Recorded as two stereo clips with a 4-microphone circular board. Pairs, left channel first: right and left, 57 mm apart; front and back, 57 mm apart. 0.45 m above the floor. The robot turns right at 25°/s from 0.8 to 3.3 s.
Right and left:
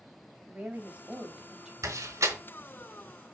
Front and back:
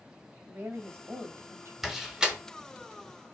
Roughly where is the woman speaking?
Behind left.